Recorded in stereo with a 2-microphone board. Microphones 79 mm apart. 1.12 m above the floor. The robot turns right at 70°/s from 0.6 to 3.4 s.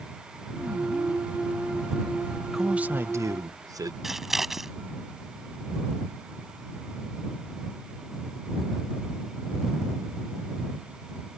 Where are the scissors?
5° right (ahead or behind).